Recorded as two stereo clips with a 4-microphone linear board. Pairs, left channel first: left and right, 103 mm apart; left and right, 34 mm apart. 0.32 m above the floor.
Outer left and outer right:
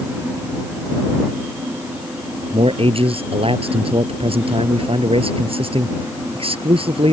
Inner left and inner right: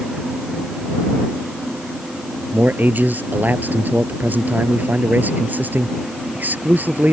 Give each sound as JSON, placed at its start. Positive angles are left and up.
{"t": 2.5, "sound": "a man speaking", "side_deg": -65}